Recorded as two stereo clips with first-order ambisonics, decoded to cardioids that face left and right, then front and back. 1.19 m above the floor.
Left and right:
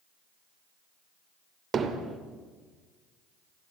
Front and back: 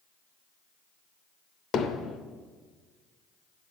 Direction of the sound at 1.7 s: 40° right.